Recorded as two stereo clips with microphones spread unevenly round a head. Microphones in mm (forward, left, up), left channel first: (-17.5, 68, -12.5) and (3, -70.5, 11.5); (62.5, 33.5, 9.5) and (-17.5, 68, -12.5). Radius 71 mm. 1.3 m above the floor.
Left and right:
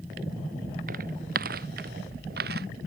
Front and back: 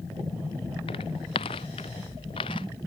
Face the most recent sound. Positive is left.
turn(degrees=-70)